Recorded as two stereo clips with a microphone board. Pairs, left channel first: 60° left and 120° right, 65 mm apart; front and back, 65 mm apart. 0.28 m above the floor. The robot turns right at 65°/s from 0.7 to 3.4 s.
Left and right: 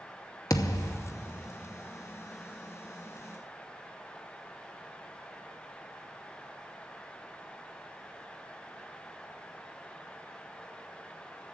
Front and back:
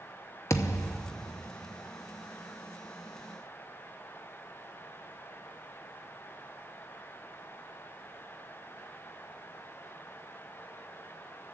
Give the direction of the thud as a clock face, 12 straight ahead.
11 o'clock.